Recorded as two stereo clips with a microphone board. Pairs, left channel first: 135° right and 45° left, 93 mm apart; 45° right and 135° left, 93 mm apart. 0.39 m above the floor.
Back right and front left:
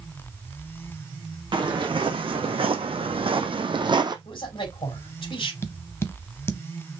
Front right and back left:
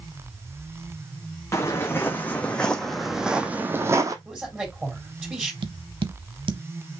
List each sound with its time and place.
1.5 s footsteps: 15° left, 1.5 m; by 4.2 s 85° left, 0.9 m
4.2 s a man speaking: 150° right, 3.5 m
5.6 s tapping: 160° left, 0.7 m